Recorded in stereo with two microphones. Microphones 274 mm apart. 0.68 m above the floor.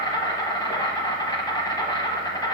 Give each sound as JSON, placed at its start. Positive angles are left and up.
{"t": 0.0, "sound": "an insect", "side_deg": 15, "distance_m": 1.1}